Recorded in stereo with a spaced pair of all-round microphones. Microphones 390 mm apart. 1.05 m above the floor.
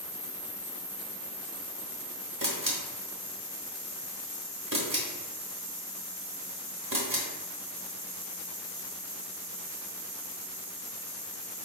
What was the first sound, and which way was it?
A camera shutter, 55° right (ahead or behind).